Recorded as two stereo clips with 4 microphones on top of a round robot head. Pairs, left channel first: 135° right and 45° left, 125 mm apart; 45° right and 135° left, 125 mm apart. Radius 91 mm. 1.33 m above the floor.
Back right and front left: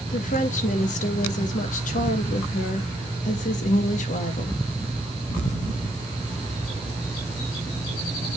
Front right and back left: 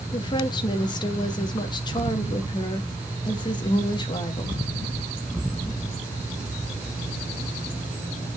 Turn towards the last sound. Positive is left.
turn(degrees=-105)